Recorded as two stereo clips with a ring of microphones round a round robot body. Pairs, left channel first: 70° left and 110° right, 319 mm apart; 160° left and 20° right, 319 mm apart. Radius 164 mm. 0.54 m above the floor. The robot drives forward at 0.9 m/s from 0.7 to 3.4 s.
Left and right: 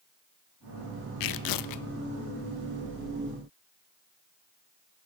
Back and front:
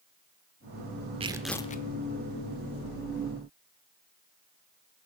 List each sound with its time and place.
1.2 s tearing paper: 50° left, 0.7 m; by 1.9 s 105° left, 0.6 m